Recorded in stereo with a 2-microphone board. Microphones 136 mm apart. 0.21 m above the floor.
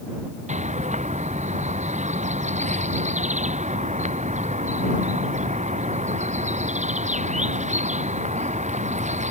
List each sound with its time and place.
0.5 s a bird: 60° right (ahead or behind)